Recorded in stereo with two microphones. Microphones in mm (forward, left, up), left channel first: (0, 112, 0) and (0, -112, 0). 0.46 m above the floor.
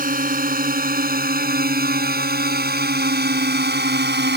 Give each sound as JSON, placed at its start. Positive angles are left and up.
{"t": 0.0, "sound": "a drone", "side_deg": -40}